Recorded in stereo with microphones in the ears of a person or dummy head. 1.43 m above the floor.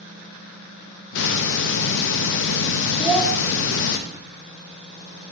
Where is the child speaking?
5° right (ahead or behind), 3 m.